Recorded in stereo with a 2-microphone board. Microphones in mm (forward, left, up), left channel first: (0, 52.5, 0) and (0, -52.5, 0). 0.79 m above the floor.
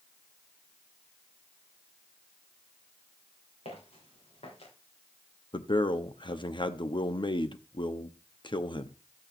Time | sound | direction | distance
3.6 | footsteps | 75° left (ahead or behind) | 7 m
5.5 | a man speaking | 50° left (ahead or behind) | 0.9 m